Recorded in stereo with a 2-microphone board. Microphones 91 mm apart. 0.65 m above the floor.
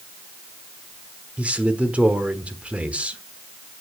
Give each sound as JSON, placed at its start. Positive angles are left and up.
{"t": 1.4, "sound": "a man speaking", "side_deg": -15, "distance_m": 1.4}